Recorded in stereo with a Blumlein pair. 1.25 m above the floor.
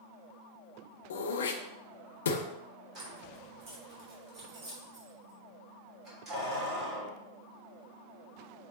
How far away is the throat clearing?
About 0.7 m.